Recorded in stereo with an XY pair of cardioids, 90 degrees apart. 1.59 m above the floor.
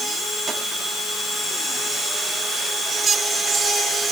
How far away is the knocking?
I don't hear knocking.